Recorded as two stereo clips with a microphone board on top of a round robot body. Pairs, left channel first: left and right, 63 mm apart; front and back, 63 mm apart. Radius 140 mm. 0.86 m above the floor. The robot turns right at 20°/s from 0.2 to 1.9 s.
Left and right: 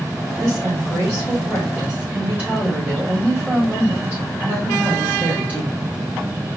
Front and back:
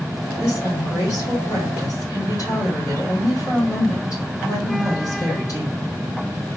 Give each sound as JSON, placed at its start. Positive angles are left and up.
{"t": 0.4, "sound": "a woman speaking", "azimuth_deg": -60, "distance_m": 2.5}